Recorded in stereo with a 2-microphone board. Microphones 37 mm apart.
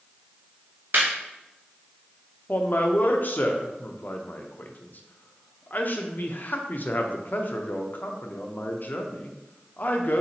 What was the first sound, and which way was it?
Laughter, 50° right (ahead or behind).